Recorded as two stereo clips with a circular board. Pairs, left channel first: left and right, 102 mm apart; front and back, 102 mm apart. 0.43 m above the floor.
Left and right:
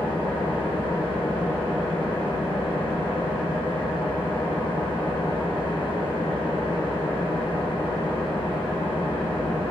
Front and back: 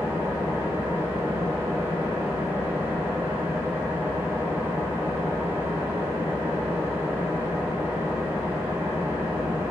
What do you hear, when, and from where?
0.0 s an engine running: 115° left, 1.7 m